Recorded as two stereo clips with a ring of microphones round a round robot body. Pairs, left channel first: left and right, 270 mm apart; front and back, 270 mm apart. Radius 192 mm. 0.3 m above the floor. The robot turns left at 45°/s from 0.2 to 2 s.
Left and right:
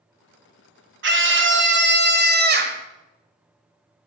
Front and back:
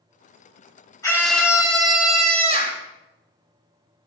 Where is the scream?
75° right, 1.4 m; by 2.8 s 120° right, 1.4 m.